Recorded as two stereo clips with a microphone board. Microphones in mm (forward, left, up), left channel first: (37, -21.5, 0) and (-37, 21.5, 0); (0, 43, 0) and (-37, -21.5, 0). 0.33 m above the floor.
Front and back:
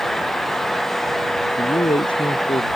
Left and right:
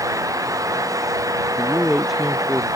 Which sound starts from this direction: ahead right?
A man speaking, at 1.6 s.